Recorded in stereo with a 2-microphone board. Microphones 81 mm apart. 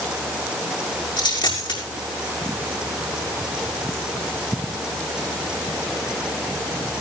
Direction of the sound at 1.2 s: 75° left (ahead or behind).